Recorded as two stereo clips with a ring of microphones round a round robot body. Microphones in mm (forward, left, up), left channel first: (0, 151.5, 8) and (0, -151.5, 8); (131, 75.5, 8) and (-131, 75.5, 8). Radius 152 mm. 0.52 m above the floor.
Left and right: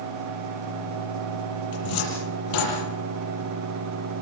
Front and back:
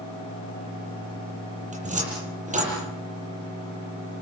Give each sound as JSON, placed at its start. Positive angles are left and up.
{"t": 1.7, "sound": "a cupboard door", "azimuth_deg": 115, "distance_m": 9.0}